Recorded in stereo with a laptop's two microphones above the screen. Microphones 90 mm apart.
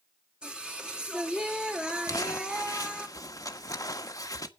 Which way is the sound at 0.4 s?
10° right (ahead or behind).